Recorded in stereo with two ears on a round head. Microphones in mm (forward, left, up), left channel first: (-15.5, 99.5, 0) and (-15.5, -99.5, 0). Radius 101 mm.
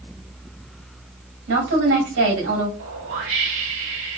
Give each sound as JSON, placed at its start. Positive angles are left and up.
{"t": 1.5, "sound": "a woman speaking", "side_deg": -65, "distance_m": 2.5}
{"t": 2.8, "sound": "a whoosh", "side_deg": -60, "distance_m": 1.8}